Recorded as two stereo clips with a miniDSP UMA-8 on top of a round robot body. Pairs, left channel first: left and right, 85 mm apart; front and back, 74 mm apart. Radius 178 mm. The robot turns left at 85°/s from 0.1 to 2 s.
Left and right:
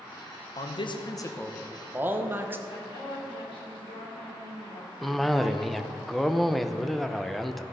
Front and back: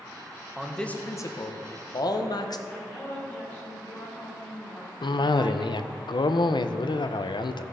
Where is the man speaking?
100° left, 1.3 m; by 2.6 s 25° right, 1.3 m.